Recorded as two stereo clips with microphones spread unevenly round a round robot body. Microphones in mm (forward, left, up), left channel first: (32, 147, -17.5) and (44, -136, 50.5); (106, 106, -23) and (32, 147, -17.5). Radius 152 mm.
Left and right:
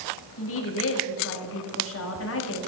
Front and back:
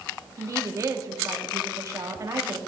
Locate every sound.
0.4 s a woman speaking: 105° left, 1.5 m